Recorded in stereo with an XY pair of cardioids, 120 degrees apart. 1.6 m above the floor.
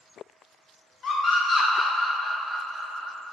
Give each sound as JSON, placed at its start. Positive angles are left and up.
{"t": 1.0, "sound": "a scream", "azimuth_deg": 40, "distance_m": 1.3}